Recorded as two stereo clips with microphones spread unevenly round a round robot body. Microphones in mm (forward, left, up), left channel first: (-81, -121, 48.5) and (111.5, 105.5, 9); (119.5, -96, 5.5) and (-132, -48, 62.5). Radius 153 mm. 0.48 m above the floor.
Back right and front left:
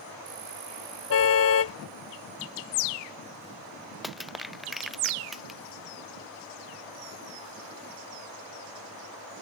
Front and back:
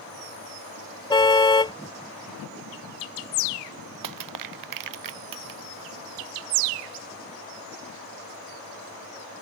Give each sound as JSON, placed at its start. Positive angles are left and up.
{"t": 1.1, "sound": "a car horn", "azimuth_deg": -85}
{"t": 4.0, "sound": "crushing", "azimuth_deg": 140}